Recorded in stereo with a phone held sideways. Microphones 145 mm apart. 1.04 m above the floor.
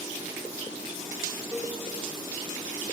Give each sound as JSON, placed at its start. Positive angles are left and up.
{"t": 1.5, "sound": "a cowbell", "side_deg": -5, "distance_m": 1.6}